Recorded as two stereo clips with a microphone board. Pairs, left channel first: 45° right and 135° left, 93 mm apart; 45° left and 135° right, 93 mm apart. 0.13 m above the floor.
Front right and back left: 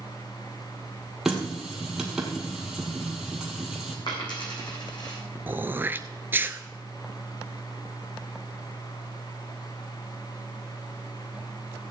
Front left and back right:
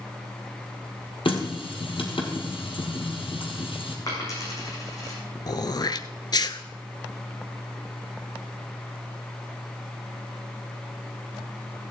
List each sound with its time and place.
1.2 s a running tap: 50° left, 2 m
4.1 s a dropped coin: 10° right, 4 m
5.5 s throat clearing: 70° left, 0.6 m